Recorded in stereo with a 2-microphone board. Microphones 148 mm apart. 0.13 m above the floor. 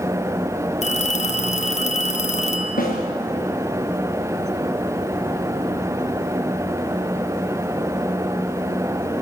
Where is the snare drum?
70° left (ahead or behind), 6 m.